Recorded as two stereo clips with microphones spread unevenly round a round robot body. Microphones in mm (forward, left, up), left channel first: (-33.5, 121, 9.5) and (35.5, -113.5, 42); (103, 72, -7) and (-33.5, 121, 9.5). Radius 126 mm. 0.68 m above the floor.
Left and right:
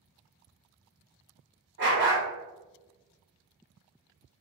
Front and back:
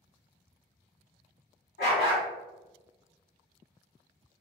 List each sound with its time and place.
1.8 s a dog barking: 30° right, 1.3 m